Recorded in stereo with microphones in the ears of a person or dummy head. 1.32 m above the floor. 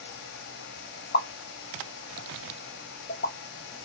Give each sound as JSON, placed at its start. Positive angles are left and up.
{"t": 1.1, "sound": "a pop", "side_deg": 45, "distance_m": 0.6}